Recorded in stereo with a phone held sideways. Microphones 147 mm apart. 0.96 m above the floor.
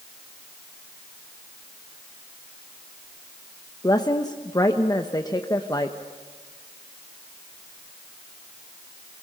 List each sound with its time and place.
3.8 s a woman speaking: 25° left (ahead or behind), 1.0 m